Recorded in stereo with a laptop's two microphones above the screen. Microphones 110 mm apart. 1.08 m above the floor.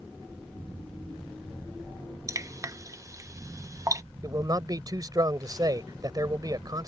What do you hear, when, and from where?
2.3 s dripping: 30° right (ahead or behind)
4.2 s a man speaking: 35° right (ahead or behind)